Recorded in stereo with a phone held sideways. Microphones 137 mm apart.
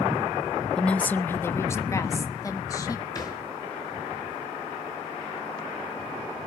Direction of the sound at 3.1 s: 30° left (ahead or behind).